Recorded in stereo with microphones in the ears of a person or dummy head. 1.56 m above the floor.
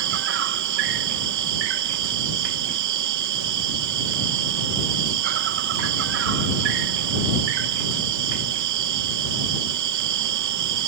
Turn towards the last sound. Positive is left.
turn(degrees=-70)  # may be behind; listen again after turning